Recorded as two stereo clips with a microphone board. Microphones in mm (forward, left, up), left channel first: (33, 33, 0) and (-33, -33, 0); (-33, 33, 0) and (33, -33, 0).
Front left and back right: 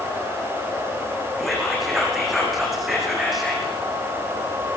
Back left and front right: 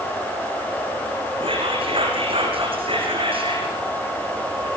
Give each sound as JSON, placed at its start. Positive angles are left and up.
{"t": 1.4, "sound": "whispering", "azimuth_deg": -45, "distance_m": 6.5}